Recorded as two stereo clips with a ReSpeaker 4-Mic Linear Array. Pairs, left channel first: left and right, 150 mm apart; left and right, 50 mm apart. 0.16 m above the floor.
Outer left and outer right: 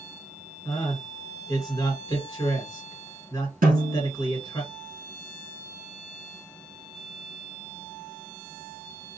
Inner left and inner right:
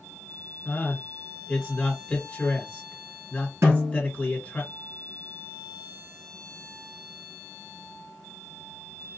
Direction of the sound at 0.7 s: 20° left (ahead or behind).